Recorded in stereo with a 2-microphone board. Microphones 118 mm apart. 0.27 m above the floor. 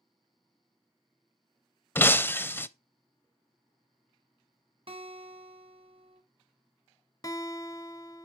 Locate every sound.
1.9 s breaking glass: 20° left (ahead or behind), 0.5 m
4.9 s a guitar: 55° right (ahead or behind), 1.8 m
7.2 s a guitar: 30° left (ahead or behind), 1.3 m